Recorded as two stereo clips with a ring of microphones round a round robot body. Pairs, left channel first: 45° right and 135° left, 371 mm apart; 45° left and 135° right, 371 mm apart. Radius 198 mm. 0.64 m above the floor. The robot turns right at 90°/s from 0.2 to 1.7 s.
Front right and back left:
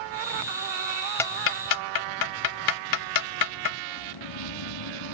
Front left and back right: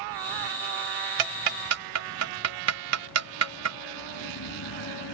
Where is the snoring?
10° right.